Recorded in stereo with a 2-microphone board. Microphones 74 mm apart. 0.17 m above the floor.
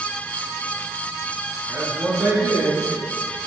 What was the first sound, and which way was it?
A man speaking, 30° right (ahead or behind).